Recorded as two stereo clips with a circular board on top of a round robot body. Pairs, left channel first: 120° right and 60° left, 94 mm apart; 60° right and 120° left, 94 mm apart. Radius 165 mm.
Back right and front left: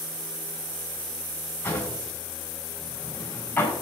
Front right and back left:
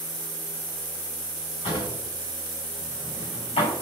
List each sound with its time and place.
1.6 s a drawer: 50° right, 5.5 m